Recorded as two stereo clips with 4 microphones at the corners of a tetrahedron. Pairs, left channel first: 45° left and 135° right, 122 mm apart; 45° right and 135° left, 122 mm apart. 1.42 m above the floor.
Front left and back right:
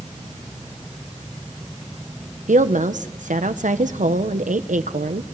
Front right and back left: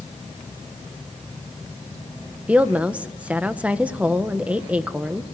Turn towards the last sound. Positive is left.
turn(degrees=-145)